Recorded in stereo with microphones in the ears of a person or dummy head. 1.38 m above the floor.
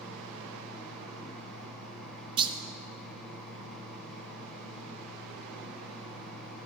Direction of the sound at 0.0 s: Centre (ahead or behind).